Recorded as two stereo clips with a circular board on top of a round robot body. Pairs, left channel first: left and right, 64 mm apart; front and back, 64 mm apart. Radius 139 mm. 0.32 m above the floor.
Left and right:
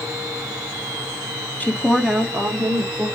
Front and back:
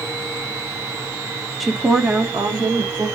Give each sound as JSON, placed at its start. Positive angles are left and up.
{"t": 1.6, "sound": "a woman speaking", "azimuth_deg": 85, "distance_m": 0.9}